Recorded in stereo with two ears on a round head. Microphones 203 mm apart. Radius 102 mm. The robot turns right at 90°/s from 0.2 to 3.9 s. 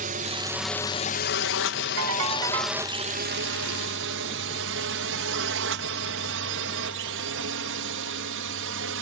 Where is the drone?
35° right (ahead or behind); by 9.0 s 60° right (ahead or behind).